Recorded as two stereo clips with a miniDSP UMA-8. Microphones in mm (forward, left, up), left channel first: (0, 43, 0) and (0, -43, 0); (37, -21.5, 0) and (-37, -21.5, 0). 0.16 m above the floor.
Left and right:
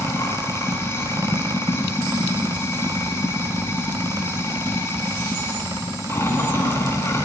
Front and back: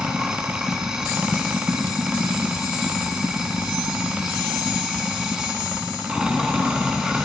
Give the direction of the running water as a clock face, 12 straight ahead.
8 o'clock.